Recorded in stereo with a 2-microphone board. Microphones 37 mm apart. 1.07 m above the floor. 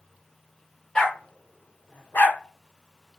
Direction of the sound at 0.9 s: 20° left (ahead or behind).